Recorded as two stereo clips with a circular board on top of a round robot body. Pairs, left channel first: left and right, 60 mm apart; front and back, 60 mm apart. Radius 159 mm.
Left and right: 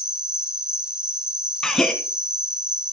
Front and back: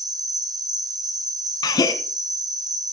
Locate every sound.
0.0 s an insect: 170° right, 1.1 m
1.6 s a gasp: 5° left, 1.1 m